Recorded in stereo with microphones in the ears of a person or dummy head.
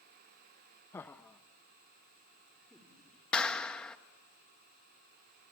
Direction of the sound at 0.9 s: 15° left (ahead or behind).